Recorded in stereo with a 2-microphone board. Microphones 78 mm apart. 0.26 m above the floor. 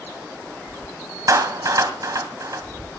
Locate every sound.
1.3 s a clap: 45° right (ahead or behind), 1.6 m